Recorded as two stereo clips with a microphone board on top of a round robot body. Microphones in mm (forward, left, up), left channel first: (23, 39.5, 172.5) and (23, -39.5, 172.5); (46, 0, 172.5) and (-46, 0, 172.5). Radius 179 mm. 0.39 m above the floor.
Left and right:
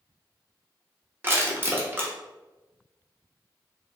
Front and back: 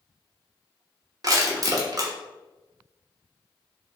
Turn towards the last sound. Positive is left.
turn(degrees=-145)